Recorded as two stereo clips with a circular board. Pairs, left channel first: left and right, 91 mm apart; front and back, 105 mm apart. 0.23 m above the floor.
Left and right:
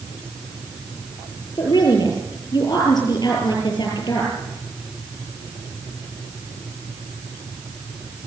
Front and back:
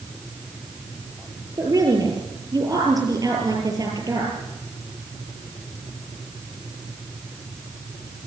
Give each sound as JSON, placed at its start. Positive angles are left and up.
{"t": 1.6, "sound": "a woman speaking", "azimuth_deg": 130, "distance_m": 6.5}